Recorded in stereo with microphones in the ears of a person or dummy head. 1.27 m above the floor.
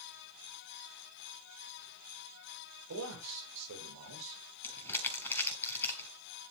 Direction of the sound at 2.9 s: 85° right.